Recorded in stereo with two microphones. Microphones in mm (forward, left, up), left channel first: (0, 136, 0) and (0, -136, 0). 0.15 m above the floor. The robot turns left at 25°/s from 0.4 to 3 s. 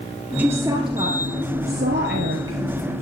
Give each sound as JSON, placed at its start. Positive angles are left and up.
{"t": 0.4, "sound": "a woman speaking", "side_deg": -5, "distance_m": 3.0}